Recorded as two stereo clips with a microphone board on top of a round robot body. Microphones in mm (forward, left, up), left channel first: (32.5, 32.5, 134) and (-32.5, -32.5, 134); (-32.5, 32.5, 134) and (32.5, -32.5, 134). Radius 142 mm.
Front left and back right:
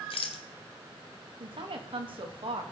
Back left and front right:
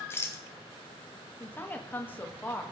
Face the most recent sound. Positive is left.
turn(degrees=-155)